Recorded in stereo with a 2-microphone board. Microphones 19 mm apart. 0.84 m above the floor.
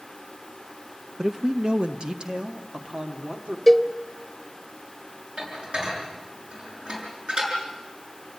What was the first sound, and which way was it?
A man speaking, 30° right (ahead or behind).